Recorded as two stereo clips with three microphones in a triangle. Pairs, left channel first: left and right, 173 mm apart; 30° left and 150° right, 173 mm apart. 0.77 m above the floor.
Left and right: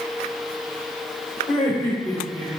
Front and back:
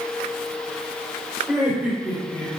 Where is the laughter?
140° left, 3.5 m.